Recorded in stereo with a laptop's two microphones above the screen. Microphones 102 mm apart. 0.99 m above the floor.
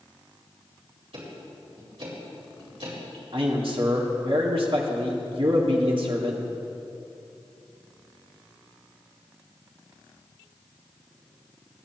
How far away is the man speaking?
About 1.9 m.